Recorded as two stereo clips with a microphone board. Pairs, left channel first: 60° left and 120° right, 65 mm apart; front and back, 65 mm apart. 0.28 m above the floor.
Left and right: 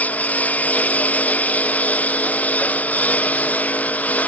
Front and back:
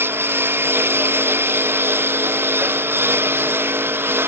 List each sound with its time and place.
0.0 s a lawn mower: 130° left